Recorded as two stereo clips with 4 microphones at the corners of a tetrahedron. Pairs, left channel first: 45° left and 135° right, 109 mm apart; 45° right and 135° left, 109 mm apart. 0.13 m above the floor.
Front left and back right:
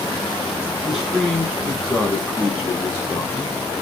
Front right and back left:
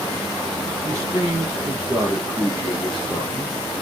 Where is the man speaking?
140° left, 1.5 m; by 3.5 s 5° right, 1.6 m.